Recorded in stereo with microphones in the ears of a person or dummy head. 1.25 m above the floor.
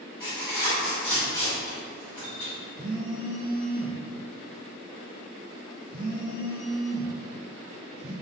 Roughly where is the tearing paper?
Left.